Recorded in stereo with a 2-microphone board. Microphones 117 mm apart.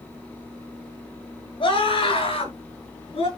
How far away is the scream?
About 7.5 m.